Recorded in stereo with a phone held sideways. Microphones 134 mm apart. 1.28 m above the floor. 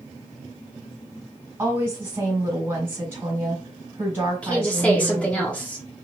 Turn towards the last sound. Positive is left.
turn(degrees=10)  # may be behind; listen again after turning